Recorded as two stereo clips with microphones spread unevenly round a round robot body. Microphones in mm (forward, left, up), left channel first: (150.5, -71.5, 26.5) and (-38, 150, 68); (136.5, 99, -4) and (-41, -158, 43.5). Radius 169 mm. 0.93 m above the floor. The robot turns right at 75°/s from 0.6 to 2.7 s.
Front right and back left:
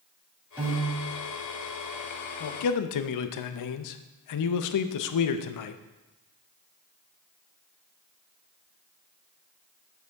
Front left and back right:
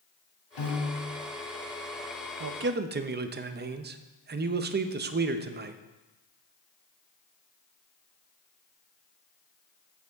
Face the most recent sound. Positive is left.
turn(degrees=-60)